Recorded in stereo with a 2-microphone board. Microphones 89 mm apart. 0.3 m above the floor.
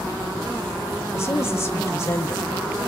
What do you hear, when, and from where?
1.1 s a woman speaking: 35° left (ahead or behind), 1.0 m